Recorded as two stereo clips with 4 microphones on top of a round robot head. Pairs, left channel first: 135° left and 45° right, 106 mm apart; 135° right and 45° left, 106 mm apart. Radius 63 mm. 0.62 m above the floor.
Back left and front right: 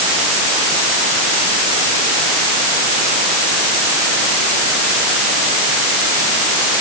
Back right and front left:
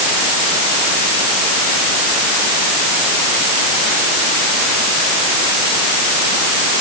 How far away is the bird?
No bird in this recording.